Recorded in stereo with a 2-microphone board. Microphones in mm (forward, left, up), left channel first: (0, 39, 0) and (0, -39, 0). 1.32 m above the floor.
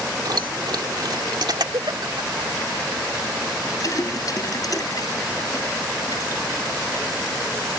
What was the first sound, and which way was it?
Keys jangling, 60° right (ahead or behind).